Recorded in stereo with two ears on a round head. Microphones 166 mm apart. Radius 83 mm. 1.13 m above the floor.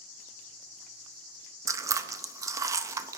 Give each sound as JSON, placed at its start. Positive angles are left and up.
{"t": 1.7, "sound": "chewing", "side_deg": -15, "distance_m": 0.5}